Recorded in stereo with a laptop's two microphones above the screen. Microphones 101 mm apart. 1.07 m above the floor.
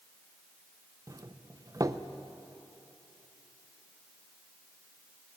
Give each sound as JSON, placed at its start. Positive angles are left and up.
{"t": 1.1, "sound": "a doorbell", "side_deg": -35, "distance_m": 0.6}